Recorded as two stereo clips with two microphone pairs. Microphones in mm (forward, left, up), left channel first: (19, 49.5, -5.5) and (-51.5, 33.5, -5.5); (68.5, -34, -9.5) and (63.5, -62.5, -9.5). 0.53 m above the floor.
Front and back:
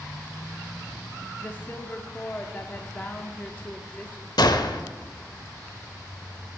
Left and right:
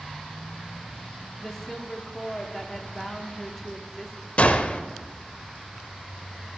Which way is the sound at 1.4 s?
25° left.